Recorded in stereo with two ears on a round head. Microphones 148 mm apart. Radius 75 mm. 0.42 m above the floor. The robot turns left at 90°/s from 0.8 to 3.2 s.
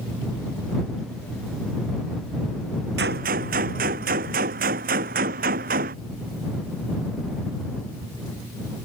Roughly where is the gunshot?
Right.